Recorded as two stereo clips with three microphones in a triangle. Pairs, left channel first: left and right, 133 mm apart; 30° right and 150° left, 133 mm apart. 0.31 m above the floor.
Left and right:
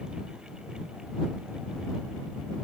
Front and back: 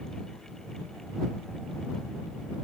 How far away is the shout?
I don't hear a shout.